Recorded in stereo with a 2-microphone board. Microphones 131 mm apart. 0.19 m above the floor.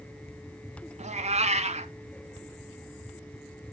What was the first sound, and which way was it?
A cat meowing, 60° right (ahead or behind).